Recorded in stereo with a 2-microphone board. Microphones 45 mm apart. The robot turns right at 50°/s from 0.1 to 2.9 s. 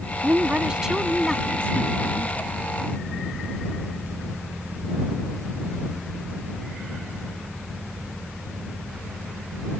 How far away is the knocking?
No knocking in this recording.